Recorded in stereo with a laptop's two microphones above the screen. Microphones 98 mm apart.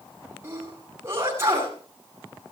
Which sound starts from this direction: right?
A sneeze, at 0.4 s.